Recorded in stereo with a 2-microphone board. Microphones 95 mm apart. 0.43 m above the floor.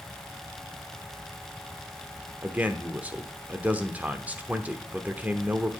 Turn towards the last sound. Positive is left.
turn(degrees=-15)  # may be behind; listen again after turning